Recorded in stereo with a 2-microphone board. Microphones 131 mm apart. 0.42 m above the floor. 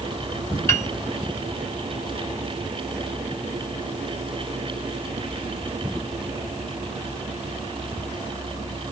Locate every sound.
0.7 s a piano: 20° left (ahead or behind), 0.7 m